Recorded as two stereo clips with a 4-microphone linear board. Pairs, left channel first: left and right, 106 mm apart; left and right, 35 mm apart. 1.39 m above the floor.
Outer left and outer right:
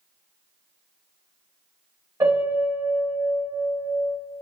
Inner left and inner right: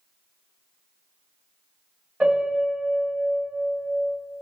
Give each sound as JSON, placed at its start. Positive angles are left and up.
{"t": 2.2, "sound": "a piano", "side_deg": -30, "distance_m": 1.9}